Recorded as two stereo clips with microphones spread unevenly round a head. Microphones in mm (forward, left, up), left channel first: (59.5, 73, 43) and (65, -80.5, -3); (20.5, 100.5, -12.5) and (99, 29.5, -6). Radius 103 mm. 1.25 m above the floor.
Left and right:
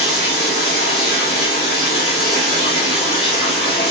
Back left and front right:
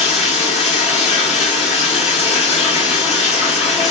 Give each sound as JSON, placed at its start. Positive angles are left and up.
{"t": 0.0, "sound": "running water", "azimuth_deg": 135, "distance_m": 1.6}